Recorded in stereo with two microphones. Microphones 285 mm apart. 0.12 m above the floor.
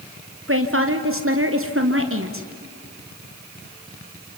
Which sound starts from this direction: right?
A woman speaking, at 0.5 s.